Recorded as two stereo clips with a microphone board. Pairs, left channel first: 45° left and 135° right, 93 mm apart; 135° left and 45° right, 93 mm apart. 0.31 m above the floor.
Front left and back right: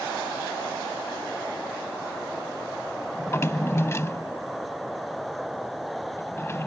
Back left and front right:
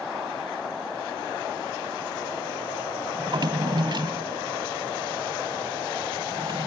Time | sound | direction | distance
3.2 | a drawer | 15° right | ?